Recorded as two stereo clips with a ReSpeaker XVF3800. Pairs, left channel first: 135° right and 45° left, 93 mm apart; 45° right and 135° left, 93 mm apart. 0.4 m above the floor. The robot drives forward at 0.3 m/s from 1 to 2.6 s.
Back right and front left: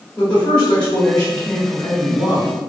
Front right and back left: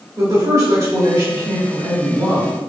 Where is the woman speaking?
150° left, 1.3 m; by 2.5 s 160° left, 1.6 m.